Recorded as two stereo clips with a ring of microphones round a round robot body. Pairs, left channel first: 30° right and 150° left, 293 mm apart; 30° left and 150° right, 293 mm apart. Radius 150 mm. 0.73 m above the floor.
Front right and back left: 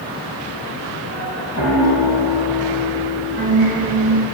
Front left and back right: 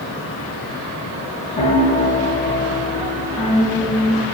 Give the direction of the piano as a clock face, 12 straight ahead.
9 o'clock.